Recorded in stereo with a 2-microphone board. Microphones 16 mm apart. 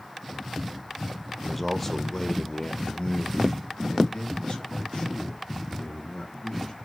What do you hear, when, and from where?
1.4 s a man speaking: centre (ahead or behind), 1.2 m; by 6.8 s 65° left (ahead or behind), 3.5 m